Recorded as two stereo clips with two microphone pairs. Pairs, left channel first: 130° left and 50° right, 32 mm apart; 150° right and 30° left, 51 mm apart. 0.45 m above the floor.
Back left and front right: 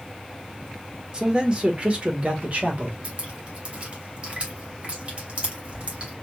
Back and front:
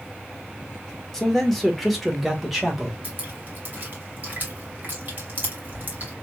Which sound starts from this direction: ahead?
Dripping, at 3.0 s.